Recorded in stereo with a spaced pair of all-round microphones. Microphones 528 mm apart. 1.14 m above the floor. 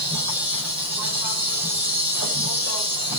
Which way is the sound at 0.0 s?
30° left (ahead or behind).